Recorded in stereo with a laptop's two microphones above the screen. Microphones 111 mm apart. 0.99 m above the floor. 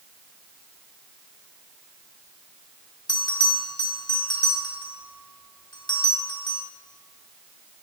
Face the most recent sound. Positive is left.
turn(degrees=45)  # may be behind; listen again after turning